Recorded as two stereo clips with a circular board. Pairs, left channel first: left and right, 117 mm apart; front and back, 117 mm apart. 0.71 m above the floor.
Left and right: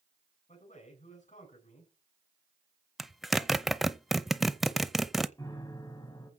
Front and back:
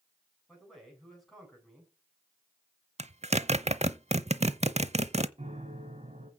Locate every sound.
0.5 s a man speaking: 90° left, 7.5 m
3.0 s a zipper: straight behind, 0.7 m
5.4 s a piano: 150° left, 3 m